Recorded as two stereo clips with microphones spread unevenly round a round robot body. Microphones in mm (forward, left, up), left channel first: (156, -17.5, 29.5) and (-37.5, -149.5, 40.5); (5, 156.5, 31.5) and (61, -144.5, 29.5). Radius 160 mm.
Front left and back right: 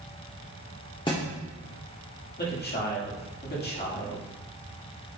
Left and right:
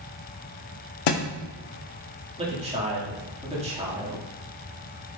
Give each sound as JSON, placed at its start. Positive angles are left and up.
{"t": 1.1, "sound": "a thud", "azimuth_deg": 110, "distance_m": 0.9}
{"t": 2.4, "sound": "a man speaking", "azimuth_deg": -10, "distance_m": 2.0}